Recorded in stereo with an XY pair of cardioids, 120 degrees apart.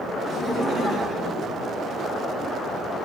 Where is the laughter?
50° right, 4.5 m; by 2.4 s 60° right, 2.5 m.